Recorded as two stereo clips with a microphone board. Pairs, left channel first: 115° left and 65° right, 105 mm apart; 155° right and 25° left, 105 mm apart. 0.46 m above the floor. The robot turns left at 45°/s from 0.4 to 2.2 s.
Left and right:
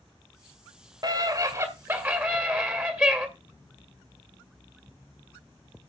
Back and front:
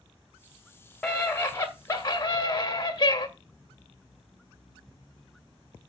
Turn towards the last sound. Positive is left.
turn(degrees=-130)